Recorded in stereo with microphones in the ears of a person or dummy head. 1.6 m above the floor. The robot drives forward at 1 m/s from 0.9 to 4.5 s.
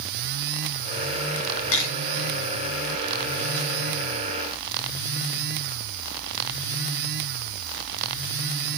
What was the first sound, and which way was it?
A camera shutter, 75° left (ahead or behind).